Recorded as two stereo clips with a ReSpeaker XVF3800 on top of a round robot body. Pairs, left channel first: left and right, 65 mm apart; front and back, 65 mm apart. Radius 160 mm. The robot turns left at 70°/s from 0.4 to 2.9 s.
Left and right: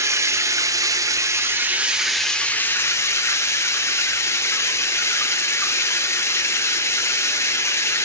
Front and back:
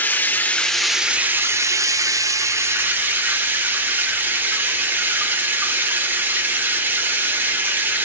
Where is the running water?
60° right, 0.8 m; by 8.1 s 125° left, 0.8 m.